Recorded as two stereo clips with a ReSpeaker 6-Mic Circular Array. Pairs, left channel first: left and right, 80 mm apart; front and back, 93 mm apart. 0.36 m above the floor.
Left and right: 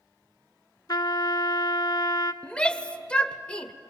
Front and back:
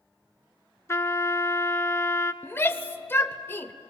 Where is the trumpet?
60° left, 0.7 m.